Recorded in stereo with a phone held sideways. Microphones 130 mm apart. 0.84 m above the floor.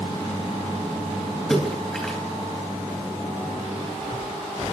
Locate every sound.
1.5 s a splash: 5° left (ahead or behind), 3.5 m